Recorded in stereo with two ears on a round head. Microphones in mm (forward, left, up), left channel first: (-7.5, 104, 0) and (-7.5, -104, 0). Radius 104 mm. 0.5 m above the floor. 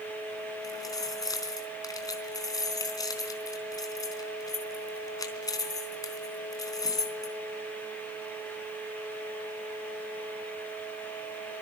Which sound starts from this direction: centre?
Keys jangling, at 0.6 s.